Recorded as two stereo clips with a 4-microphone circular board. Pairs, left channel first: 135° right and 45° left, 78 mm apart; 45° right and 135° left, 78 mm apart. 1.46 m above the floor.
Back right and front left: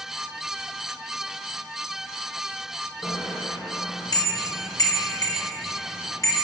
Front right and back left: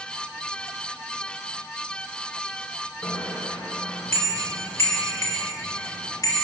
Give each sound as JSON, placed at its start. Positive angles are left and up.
{"t": 3.0, "sound": "a bicycle bell", "azimuth_deg": -110, "distance_m": 3.5}